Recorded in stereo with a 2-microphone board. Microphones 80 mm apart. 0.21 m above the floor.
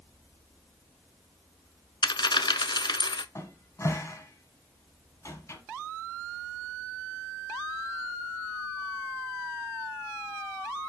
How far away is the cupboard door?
About 1.4 m.